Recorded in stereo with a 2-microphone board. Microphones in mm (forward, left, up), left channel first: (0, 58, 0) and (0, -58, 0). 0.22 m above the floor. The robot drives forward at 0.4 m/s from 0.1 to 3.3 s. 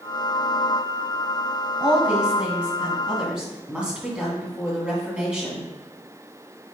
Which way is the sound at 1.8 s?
10° right (ahead or behind).